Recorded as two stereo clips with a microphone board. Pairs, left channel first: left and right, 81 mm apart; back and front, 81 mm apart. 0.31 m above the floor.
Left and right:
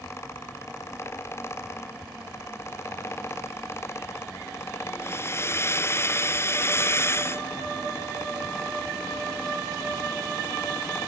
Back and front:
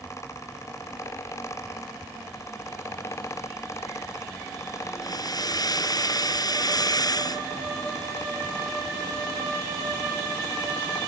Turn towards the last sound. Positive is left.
turn(degrees=145)